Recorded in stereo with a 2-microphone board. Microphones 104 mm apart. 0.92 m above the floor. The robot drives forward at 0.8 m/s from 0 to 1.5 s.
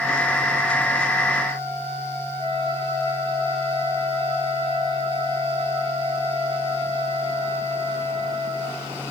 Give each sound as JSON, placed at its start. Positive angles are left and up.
{"t": 2.4, "sound": "a flute", "side_deg": 65, "distance_m": 10.0}